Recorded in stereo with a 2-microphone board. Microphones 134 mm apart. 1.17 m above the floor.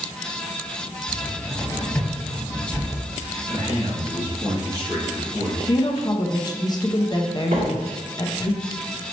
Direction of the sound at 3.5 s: 30° right (ahead or behind).